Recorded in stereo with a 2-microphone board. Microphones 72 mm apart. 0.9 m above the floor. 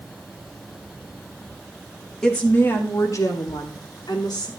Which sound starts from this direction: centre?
A woman speaking, at 2.2 s.